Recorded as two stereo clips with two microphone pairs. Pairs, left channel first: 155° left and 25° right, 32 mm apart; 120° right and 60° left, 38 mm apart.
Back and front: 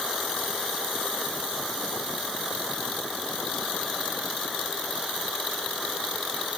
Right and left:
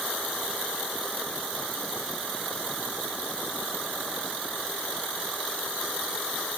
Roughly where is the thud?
I don't hear a thud.